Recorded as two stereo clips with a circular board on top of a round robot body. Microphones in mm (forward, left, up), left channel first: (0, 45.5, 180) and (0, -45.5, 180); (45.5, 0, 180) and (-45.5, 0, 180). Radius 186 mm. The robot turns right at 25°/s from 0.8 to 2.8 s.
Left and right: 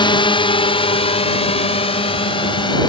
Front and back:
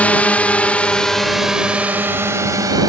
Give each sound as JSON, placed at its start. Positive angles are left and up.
{"t": 0.0, "sound": "a drone", "azimuth_deg": 75}